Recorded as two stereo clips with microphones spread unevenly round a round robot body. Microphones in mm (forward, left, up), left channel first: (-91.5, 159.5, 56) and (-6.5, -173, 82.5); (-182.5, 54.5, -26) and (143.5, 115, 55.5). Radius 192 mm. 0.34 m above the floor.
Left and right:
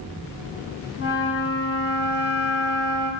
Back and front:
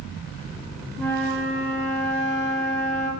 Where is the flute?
40° left, 2.5 m.